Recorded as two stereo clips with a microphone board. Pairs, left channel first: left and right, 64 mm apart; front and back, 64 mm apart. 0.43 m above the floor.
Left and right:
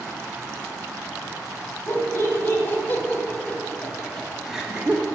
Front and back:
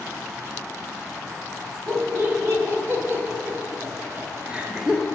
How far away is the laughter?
About 2 m.